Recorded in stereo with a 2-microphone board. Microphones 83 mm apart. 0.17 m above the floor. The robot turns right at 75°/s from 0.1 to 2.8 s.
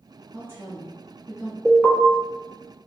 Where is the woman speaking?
60° right, 1.7 m; by 1.6 s 35° left, 1.7 m.